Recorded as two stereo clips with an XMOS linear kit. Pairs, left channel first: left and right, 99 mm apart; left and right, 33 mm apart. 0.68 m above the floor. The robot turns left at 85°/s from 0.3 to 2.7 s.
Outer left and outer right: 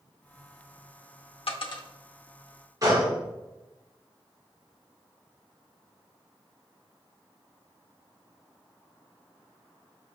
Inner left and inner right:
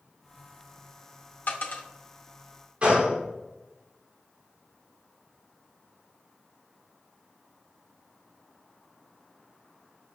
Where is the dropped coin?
75° left (ahead or behind), 0.6 m; by 1.8 s 45° left (ahead or behind), 0.6 m.